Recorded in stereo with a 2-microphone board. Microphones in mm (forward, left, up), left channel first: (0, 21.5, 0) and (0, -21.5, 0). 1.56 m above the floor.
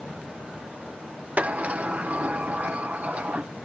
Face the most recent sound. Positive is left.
turn(degrees=-35)  # may be behind; listen again after turning